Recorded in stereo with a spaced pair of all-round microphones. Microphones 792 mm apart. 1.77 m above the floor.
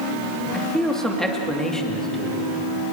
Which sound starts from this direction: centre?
A man speaking, at 0.5 s.